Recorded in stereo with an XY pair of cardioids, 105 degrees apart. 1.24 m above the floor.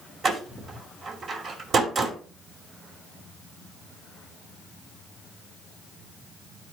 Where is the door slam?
55° right, 2.5 m.